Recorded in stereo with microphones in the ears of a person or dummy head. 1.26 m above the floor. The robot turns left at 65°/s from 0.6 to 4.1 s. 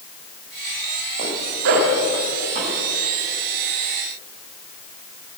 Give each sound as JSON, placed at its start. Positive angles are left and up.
{"t": 1.2, "sound": "a zipper", "side_deg": -35, "distance_m": 1.8}